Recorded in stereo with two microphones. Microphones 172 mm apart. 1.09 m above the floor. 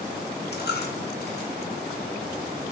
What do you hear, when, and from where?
0.5 s a dropped coin: 70° left (ahead or behind), 1.0 m